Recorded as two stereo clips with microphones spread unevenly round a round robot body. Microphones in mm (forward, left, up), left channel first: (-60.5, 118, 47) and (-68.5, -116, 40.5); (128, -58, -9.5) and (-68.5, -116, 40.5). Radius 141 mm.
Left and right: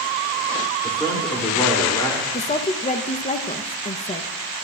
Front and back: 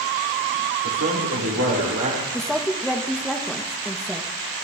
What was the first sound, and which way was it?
A man speaking, 160° left.